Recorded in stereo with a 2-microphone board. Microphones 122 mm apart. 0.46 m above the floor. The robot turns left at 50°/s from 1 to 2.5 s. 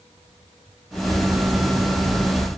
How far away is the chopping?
No chopping in this recording.